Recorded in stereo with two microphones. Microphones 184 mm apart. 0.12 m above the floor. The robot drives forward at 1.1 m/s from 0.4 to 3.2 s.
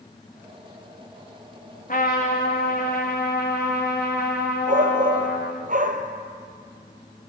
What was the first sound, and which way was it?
A trumpet, 50° left (ahead or behind).